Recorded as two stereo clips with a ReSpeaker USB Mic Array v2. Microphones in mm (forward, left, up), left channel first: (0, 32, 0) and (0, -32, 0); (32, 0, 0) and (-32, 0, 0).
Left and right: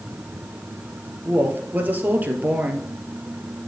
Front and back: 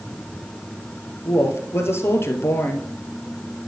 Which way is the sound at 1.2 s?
35° right.